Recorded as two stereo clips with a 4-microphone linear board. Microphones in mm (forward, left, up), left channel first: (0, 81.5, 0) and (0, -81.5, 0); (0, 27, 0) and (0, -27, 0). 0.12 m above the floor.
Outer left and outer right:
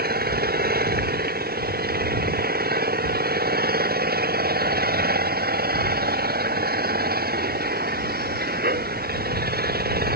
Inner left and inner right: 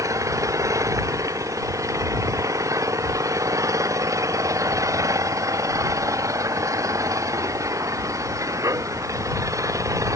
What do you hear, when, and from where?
0.0 s an engine running: 75° right (ahead or behind)